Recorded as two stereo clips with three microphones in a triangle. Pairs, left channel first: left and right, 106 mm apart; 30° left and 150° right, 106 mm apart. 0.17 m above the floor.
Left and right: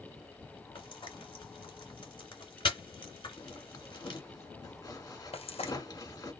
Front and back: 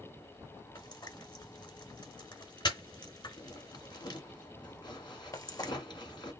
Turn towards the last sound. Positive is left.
turn(degrees=85)